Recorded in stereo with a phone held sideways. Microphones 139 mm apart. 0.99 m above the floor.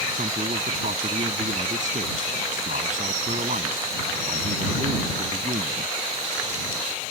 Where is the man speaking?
65° right (ahead or behind).